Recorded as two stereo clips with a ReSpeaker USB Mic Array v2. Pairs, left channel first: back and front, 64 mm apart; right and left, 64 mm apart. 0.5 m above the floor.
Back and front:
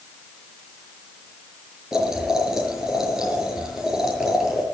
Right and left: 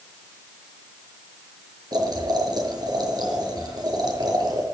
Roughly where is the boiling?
Left.